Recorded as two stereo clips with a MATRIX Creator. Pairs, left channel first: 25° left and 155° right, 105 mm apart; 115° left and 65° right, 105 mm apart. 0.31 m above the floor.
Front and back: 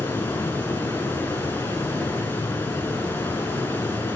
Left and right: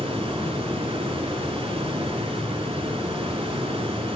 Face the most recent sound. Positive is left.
turn(degrees=-50)